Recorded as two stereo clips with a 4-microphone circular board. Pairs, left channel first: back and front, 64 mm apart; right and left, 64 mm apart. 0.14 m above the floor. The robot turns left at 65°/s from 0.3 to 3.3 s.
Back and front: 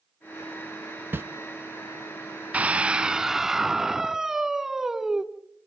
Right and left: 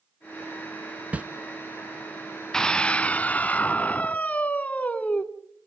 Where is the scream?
25° right, 1.1 m; by 5.2 s 75° right, 1.1 m.